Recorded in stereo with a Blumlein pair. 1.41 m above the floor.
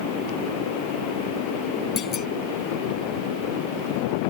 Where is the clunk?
30° left.